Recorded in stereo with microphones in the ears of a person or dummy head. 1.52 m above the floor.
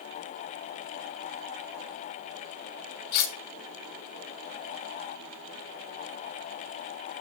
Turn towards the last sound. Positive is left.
turn(degrees=60)  # may be behind; listen again after turning